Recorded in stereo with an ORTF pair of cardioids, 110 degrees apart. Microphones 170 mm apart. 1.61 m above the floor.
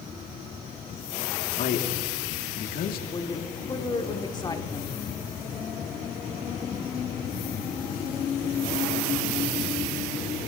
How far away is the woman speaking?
About 1.7 m.